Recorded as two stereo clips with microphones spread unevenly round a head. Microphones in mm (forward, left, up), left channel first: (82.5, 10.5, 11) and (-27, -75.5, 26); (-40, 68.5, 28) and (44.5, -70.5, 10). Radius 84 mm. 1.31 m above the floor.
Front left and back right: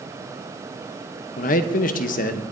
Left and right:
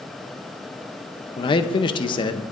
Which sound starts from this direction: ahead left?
A man speaking, at 1.4 s.